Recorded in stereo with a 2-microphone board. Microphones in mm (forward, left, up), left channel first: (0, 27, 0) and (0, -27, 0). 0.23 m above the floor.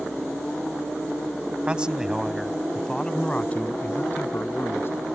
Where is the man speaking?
20° right (ahead or behind); by 5.0 s 45° left (ahead or behind).